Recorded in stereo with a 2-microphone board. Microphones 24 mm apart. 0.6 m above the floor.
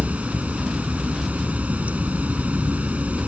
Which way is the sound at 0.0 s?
80° right.